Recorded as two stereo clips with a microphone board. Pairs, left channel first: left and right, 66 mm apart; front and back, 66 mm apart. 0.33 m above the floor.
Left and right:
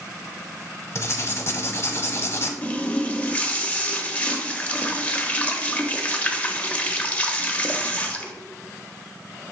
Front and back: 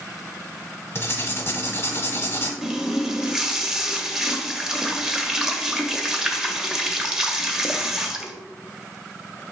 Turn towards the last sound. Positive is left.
turn(degrees=115)